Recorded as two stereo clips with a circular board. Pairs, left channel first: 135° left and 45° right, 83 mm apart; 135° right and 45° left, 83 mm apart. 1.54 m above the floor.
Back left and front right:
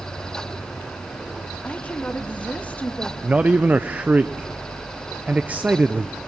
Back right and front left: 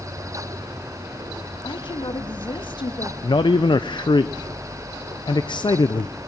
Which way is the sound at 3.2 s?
115° right.